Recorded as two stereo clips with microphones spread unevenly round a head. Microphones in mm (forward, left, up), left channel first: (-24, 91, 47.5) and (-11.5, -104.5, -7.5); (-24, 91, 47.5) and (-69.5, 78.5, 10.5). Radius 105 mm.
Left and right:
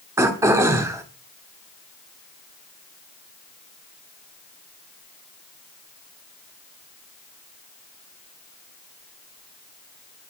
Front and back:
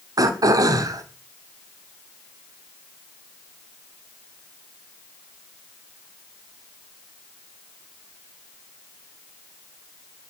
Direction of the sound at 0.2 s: 170° right.